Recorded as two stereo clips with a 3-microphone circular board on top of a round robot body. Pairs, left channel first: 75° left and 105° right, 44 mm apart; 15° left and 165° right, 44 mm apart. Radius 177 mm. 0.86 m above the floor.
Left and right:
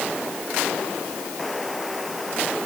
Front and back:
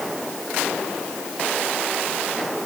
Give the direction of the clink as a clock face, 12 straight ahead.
I don't hear a clink.